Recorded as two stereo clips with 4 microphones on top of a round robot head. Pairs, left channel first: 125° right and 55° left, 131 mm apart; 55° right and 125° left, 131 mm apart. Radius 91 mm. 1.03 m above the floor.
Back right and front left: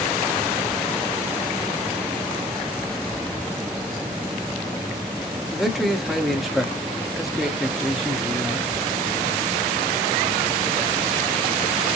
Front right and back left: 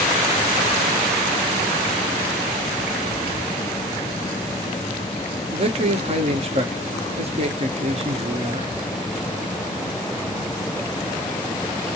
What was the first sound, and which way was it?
A man speaking, 140° left.